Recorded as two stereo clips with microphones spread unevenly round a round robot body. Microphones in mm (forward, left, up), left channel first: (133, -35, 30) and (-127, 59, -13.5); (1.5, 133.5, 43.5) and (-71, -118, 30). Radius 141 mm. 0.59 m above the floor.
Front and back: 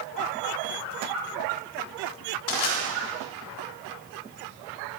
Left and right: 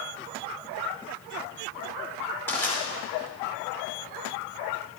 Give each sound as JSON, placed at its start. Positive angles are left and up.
{"t": 2.5, "sound": "crushing", "azimuth_deg": -10, "distance_m": 2.5}